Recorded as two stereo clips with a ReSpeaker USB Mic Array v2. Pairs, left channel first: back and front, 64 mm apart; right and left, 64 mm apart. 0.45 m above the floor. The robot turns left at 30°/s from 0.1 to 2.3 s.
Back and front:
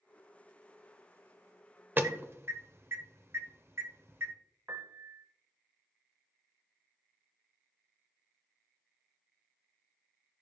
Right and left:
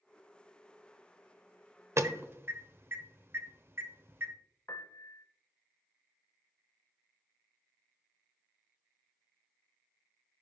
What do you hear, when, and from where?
2.0 s an alarm: 55° left, 0.9 m; by 4.3 s 45° left, 0.9 m
4.7 s a piano: 50° right, 0.7 m